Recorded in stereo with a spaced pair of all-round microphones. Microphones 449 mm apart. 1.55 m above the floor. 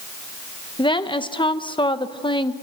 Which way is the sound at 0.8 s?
10° left (ahead or behind).